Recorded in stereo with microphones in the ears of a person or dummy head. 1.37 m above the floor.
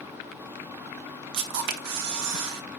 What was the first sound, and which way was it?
A camera shutter, 60° right (ahead or behind).